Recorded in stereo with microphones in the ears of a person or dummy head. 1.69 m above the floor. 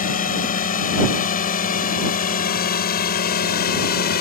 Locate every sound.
0.0 s a drone: 40° left (ahead or behind); by 4.2 s 50° left (ahead or behind)